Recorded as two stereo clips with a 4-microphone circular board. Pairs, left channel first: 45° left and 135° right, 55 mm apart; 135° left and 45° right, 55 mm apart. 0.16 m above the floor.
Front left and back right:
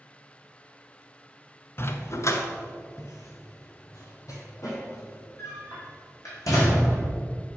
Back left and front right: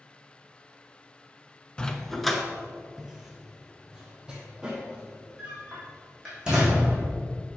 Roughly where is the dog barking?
Ahead left.